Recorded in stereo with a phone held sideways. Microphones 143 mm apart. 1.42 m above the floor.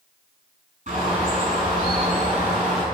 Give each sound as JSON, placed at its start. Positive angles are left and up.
{"t": 0.9, "sound": "a bird", "side_deg": -60, "distance_m": 5.0}